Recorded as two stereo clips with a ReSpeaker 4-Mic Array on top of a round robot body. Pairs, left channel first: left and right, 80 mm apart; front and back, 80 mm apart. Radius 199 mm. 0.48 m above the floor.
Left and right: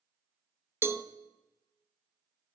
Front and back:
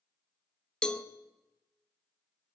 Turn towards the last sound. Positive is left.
turn(degrees=-70)